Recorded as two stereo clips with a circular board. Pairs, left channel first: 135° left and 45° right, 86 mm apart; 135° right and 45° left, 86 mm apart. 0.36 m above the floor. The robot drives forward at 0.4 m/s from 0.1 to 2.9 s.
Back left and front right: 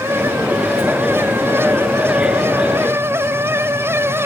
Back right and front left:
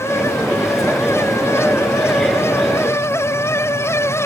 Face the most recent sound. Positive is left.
No sound to turn to.